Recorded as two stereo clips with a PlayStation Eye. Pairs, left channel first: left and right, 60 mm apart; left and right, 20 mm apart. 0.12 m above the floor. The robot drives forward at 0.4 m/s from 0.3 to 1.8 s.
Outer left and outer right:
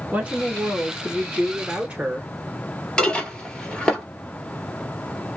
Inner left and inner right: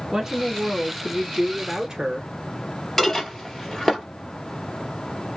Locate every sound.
0.1 s a woman speaking: 25° right (ahead or behind), 1.1 m
3.0 s dishes clattering: 15° left (ahead or behind), 1.6 m